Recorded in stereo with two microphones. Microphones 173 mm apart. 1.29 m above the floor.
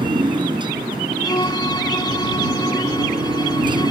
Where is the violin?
25° left (ahead or behind).